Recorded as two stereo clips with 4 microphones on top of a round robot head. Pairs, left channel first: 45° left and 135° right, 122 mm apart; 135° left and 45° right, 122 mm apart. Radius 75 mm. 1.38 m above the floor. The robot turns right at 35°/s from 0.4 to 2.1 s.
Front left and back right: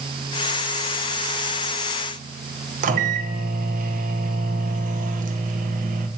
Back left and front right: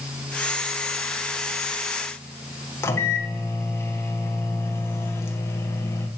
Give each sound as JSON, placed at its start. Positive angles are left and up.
{"t": 2.8, "sound": "a microwave", "azimuth_deg": -155, "distance_m": 1.2}